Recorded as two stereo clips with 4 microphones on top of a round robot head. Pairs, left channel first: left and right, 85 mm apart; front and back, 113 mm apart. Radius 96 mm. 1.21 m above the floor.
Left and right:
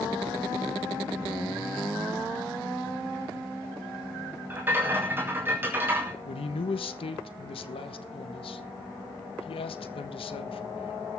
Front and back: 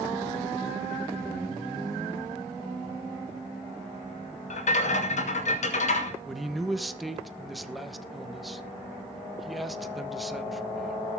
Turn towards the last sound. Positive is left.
turn(degrees=90)